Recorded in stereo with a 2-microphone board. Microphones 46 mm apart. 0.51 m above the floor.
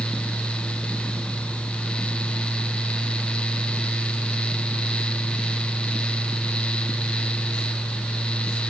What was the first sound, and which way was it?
Only background noise.